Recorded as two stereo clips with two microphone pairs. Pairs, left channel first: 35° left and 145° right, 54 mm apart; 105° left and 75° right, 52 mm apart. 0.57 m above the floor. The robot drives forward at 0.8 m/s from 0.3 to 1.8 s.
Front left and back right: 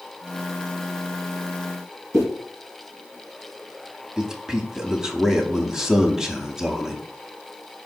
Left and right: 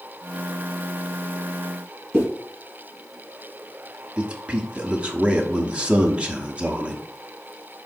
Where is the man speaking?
75° right, 0.6 m.